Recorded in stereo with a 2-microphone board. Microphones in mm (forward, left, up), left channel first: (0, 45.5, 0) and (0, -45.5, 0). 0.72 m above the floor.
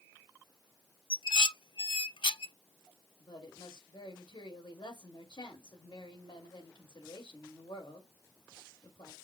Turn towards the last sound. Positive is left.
turn(degrees=60)  # may be behind; listen again after turning